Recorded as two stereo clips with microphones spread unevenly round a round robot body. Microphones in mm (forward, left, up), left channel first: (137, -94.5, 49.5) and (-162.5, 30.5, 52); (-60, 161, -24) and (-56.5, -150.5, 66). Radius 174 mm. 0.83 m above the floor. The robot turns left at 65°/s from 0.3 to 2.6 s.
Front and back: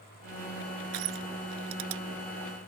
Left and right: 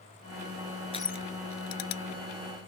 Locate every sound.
0.9 s crushing: 165° left; by 2.0 s 95° left